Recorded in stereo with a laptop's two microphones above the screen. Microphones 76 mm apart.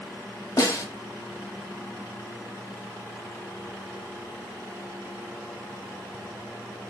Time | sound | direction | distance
0.6 | a snare drum | 45° left (ahead or behind) | 1.0 m